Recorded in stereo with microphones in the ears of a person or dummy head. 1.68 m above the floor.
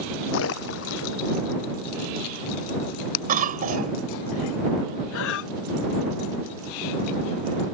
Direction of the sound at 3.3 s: 45° right (ahead or behind).